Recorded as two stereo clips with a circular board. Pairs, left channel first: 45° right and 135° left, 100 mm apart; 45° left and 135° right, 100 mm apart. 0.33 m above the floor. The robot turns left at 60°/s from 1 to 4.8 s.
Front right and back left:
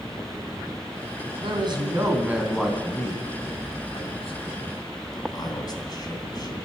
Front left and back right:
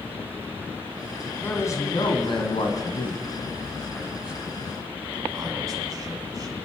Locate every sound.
1.4 s a man speaking: 115° left, 2.5 m; by 6.6 s 85° right, 2.5 m